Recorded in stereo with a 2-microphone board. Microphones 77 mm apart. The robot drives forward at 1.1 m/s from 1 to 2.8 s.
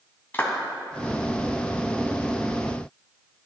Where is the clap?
25° left (ahead or behind), 1.6 m.